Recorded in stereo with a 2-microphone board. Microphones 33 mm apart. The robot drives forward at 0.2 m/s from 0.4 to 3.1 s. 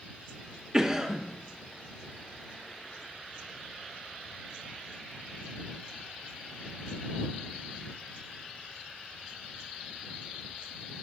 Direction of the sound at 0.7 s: 20° right (ahead or behind).